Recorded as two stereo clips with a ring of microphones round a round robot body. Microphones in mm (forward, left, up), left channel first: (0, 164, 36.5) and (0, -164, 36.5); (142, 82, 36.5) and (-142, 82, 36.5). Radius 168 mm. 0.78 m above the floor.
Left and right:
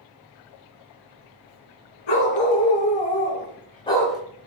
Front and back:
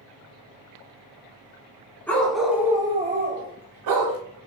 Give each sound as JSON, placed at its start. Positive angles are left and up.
{"t": 2.1, "sound": "a dog barking", "azimuth_deg": 85, "distance_m": 2.5}